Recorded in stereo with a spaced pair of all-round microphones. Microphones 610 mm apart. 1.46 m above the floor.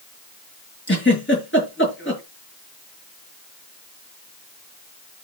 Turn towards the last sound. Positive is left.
turn(degrees=20)  # may be behind; listen again after turning